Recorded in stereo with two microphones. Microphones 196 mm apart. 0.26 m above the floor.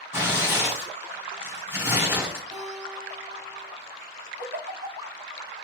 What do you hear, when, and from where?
0.1 s tearing paper: 10° right (ahead or behind), 2 m
2.5 s a guitar: 5° right (ahead or behind), 3.5 m
4.4 s a giggle: 55° right (ahead or behind), 0.9 m